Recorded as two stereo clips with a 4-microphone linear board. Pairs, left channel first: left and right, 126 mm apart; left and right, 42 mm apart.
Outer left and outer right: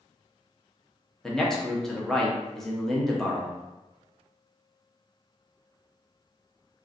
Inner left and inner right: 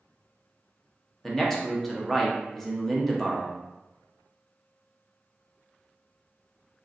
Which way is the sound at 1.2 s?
5° left (ahead or behind).